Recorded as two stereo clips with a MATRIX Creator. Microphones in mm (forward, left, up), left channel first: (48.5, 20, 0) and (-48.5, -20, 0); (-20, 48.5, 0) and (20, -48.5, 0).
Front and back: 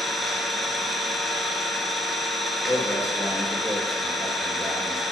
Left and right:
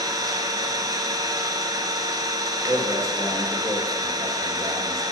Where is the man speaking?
25° right, 2.5 m.